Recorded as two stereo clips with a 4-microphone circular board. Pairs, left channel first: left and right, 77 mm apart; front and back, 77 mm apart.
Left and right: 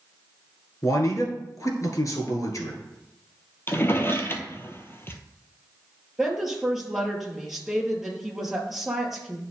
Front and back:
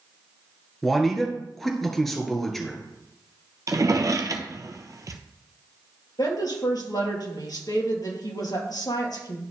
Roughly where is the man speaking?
Left.